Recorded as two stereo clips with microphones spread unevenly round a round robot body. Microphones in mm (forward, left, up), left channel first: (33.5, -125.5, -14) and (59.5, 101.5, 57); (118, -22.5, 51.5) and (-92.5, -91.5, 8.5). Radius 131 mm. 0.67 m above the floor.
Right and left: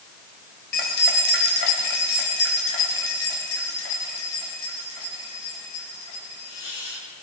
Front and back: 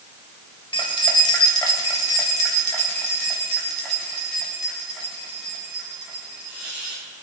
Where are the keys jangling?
50° right, 2.5 m; by 7.0 s 75° right, 5.5 m.